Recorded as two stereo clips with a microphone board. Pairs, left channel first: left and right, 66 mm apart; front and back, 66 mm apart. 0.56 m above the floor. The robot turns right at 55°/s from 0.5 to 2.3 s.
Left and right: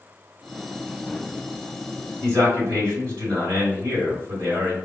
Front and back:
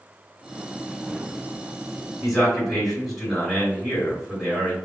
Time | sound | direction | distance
2.2 | a man speaking | 105° right | 1.9 m